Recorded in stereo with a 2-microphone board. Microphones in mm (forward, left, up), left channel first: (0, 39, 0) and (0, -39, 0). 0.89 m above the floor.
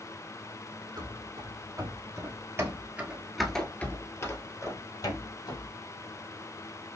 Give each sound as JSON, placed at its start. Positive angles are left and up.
{"t": 1.0, "sound": "running footsteps", "side_deg": -65, "distance_m": 2.0}